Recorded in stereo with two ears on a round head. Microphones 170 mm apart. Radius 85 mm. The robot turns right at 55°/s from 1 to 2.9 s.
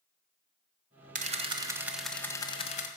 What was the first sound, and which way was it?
A camera shutter, 50° right.